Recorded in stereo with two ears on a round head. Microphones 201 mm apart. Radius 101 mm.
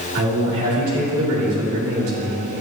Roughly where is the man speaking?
Right.